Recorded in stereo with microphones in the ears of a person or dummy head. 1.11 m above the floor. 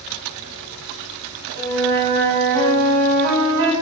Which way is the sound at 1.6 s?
60° right (ahead or behind).